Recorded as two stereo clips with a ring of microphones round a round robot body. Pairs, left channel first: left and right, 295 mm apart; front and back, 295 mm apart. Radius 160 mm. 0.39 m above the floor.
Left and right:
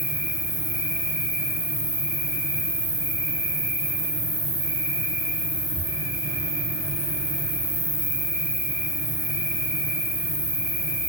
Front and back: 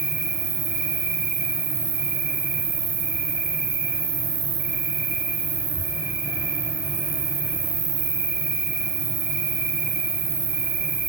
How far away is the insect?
About 3 m.